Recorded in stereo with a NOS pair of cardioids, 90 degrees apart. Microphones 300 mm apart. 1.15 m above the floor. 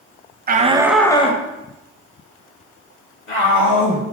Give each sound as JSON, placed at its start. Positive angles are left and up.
{"t": 0.5, "sound": "a shout", "azimuth_deg": -30, "distance_m": 0.6}